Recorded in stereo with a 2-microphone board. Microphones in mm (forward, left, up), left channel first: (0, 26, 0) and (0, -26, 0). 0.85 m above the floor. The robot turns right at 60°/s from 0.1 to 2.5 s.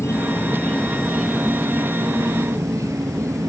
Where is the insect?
125° left; by 3.5 s 95° right.